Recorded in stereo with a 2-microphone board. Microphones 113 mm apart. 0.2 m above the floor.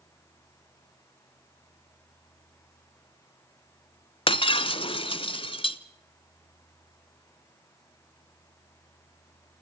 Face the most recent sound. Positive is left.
turn(degrees=50)  # may be behind; listen again after turning